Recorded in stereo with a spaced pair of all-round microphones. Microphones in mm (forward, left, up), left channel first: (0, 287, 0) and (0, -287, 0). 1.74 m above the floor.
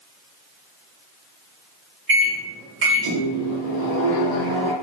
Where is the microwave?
35° right (ahead or behind), 0.8 m.